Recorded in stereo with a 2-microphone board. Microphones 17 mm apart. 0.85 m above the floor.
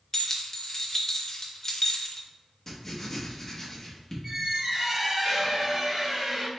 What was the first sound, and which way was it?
Keys jangling, 25° left (ahead or behind).